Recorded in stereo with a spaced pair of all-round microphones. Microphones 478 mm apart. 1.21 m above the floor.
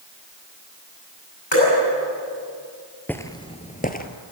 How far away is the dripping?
About 9.5 m.